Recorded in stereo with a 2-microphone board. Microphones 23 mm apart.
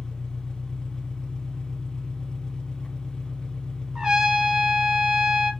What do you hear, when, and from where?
0.0 s an engine running: 45° left (ahead or behind), 0.7 m
4.0 s a trumpet: 30° right (ahead or behind), 1.3 m